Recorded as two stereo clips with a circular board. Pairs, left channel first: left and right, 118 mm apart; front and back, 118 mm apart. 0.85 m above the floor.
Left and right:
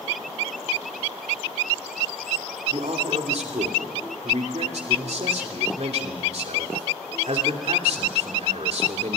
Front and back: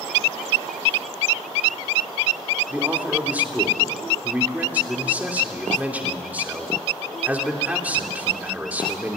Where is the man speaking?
105° right, 2.5 m.